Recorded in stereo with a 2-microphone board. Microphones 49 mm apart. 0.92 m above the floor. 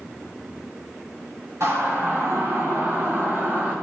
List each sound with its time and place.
1.6 s a siren: 65° right (ahead or behind), 6.5 m; by 3.8 s 45° right (ahead or behind), 6.5 m